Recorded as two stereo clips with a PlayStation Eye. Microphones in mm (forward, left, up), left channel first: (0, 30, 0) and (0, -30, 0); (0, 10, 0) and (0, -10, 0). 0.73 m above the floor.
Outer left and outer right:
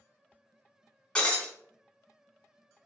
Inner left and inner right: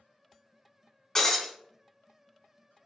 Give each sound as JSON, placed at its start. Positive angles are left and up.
{"t": 1.1, "sound": "breaking glass", "side_deg": 20, "distance_m": 1.1}